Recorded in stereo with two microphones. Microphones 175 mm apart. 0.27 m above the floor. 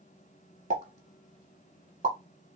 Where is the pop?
45° right (ahead or behind), 0.8 m.